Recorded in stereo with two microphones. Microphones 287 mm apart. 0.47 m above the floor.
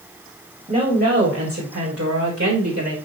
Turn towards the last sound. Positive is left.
turn(degrees=-50)  # may be behind; listen again after turning